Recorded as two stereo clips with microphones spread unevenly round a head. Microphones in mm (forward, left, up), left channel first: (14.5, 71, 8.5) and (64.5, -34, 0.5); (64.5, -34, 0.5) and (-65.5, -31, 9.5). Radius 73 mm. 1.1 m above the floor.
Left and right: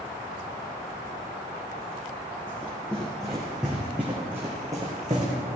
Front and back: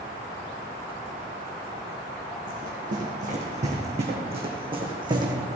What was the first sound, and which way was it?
Running footsteps, 165° right.